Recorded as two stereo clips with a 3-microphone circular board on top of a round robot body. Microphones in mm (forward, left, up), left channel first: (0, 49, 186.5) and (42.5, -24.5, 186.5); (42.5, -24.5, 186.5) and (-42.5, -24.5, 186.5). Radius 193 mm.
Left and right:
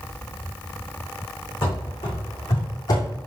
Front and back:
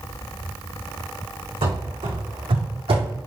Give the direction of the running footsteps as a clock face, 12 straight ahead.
6 o'clock.